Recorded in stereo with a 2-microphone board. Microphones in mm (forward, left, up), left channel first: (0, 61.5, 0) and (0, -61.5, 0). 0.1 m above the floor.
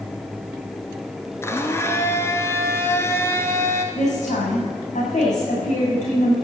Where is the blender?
20° left (ahead or behind), 1.3 m.